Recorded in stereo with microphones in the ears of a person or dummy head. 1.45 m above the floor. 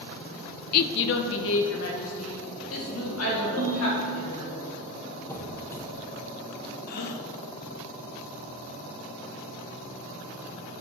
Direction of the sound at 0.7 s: 50° left (ahead or behind).